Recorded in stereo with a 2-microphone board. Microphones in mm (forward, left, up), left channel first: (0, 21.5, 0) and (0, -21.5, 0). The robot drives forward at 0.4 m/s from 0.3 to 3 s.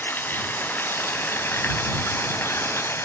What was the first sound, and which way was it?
Running water, 55° left (ahead or behind).